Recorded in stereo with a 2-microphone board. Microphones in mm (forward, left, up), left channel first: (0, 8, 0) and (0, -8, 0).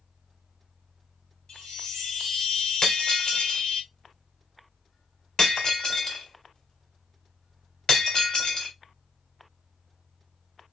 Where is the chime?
75° left (ahead or behind), 1.8 m.